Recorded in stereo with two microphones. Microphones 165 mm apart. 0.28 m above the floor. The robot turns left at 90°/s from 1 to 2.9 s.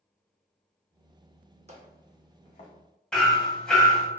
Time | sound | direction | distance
1.7 | footsteps | 45° right (ahead or behind) | 0.8 m
3.1 | hammering | 5° left (ahead or behind) | 0.6 m